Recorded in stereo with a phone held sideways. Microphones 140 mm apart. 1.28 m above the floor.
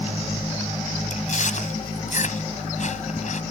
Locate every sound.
1.1 s chewing: 60° left (ahead or behind)